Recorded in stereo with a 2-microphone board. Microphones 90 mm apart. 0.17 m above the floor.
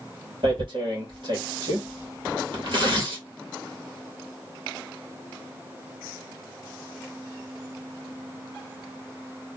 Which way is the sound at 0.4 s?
65° right (ahead or behind).